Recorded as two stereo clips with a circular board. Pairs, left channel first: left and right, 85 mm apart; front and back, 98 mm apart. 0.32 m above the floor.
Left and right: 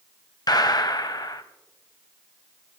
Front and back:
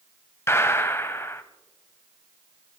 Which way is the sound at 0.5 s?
60° left.